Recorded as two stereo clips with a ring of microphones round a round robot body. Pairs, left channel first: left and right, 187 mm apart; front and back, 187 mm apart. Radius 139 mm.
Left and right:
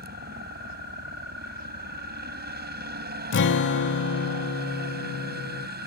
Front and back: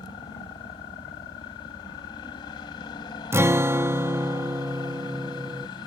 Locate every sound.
0.0 s a helicopter: 70° right
3.3 s a guitar: 105° left